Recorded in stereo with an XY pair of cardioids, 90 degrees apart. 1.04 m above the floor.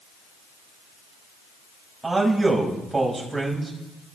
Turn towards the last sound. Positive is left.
turn(degrees=-20)